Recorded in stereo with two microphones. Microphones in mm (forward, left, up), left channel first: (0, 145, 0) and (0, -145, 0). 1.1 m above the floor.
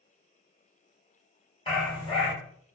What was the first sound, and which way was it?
A dog barking, 20° left (ahead or behind).